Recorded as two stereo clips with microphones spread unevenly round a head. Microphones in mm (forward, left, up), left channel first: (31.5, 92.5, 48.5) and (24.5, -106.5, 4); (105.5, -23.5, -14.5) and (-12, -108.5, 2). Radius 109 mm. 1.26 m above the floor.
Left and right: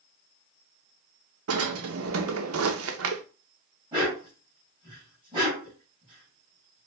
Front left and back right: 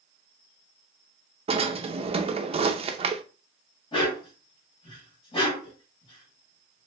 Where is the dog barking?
20° right, 2.5 m.